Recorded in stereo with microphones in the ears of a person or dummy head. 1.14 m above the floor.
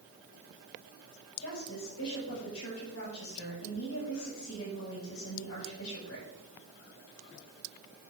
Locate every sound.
1.4 s a woman speaking: 85° left, 7 m